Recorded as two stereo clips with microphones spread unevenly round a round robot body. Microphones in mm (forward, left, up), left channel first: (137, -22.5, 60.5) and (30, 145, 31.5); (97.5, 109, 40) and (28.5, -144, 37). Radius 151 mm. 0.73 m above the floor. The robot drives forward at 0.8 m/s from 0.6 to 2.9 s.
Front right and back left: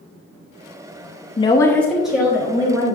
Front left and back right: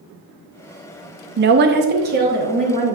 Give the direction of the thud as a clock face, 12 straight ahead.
I don't hear a thud.